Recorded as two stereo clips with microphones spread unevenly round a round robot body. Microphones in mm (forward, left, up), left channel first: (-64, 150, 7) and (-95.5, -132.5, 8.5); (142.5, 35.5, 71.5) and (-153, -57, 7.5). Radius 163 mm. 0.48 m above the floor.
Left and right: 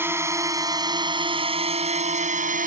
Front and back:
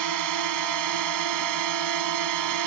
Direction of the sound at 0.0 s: Straight behind.